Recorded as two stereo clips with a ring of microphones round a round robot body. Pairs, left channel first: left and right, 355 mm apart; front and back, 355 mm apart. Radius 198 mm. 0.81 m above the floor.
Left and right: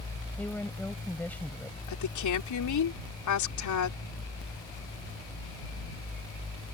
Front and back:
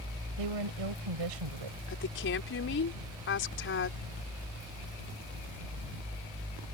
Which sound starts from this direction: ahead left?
A woman speaking, at 1.9 s.